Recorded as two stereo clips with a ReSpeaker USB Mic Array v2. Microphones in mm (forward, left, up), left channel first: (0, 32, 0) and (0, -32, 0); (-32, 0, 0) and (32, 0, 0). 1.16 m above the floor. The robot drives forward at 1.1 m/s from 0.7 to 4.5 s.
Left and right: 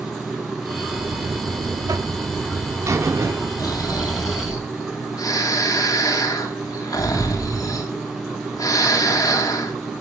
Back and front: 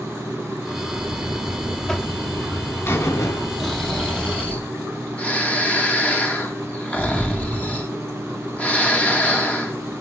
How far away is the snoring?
About 3 m.